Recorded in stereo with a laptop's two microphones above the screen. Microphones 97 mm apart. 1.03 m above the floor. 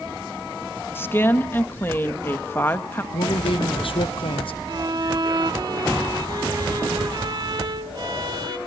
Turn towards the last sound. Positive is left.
turn(degrees=-50)  # may be behind; listen again after turning